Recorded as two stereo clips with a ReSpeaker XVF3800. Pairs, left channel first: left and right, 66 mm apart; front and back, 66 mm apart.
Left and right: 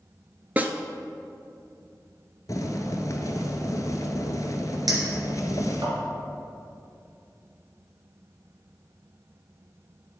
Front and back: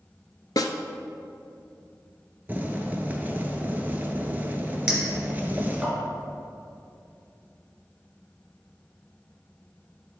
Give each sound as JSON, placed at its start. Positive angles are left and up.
{"t": 0.6, "sound": "a snare drum", "azimuth_deg": -25, "distance_m": 0.6}
{"t": 2.5, "sound": "boiling", "azimuth_deg": 120, "distance_m": 0.8}
{"t": 4.9, "sound": "a clink", "azimuth_deg": -105, "distance_m": 2.5}